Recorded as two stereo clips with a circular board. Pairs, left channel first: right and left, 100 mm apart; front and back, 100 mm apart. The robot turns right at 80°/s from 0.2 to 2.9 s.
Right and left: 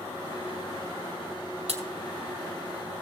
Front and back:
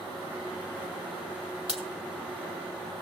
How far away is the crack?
About 1.7 m.